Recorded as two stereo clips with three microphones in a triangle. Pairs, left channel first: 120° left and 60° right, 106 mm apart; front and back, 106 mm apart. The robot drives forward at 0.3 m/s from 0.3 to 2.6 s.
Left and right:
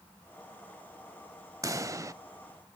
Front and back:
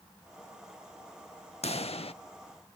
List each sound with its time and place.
1.6 s a pop: straight ahead, 0.7 m